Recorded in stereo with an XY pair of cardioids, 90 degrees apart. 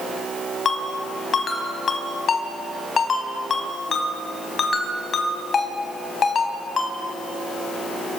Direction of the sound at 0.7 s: 50° left.